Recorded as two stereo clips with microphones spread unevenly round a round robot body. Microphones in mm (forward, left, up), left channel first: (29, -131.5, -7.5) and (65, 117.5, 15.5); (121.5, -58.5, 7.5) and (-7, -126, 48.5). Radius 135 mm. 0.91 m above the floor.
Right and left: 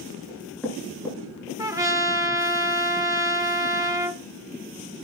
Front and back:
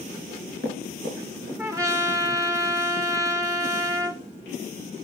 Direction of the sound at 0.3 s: 175° left.